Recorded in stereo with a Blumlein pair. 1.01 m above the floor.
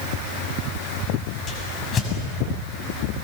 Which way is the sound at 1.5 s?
20° left.